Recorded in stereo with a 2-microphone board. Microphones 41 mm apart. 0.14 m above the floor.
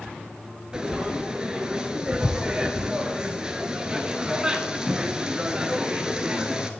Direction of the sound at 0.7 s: 20° right (ahead or behind).